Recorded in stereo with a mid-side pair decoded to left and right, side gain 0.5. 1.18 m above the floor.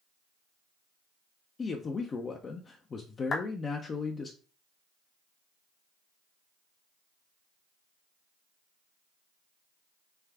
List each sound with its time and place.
1.6 s a man speaking: 40° left, 0.6 m
3.3 s a clap: 40° left, 0.8 m